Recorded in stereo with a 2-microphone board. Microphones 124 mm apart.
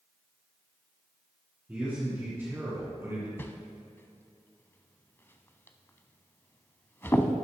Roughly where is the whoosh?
Centre.